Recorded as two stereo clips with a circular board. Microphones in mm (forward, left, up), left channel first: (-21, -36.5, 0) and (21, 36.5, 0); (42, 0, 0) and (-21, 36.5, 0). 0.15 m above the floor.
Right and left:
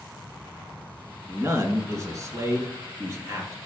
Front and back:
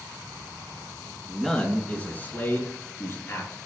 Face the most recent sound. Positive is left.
turn(degrees=10)